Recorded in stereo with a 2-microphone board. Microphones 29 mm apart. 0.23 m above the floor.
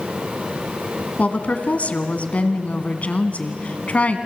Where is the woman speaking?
55° left (ahead or behind), 1.9 m.